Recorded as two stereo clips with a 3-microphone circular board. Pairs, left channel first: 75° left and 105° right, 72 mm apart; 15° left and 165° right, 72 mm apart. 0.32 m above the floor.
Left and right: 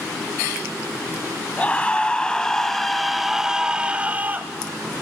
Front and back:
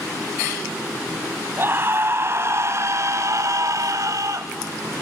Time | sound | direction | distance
1.6 | a scream | 140° left | 2 m